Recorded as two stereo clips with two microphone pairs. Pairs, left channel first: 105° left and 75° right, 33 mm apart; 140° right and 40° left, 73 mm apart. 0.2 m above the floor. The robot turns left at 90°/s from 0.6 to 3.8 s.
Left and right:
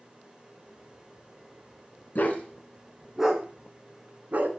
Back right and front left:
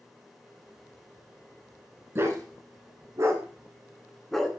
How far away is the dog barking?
About 0.9 m.